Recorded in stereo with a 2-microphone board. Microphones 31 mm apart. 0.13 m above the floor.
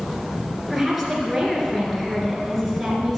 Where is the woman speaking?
5° right (ahead or behind), 2 m.